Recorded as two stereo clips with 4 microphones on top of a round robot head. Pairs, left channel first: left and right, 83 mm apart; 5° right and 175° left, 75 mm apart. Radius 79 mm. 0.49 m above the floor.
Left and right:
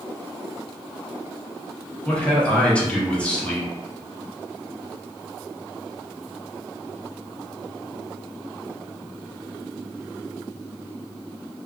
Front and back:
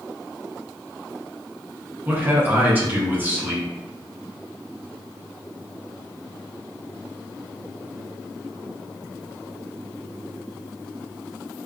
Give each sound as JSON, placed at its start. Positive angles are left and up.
{"t": 2.0, "sound": "a man speaking", "azimuth_deg": 150, "distance_m": 0.9}